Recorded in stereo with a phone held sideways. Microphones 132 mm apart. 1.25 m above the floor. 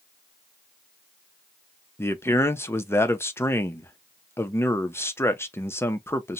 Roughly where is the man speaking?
Centre.